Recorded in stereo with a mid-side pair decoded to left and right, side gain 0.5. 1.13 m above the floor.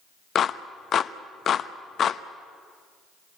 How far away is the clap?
About 0.9 m.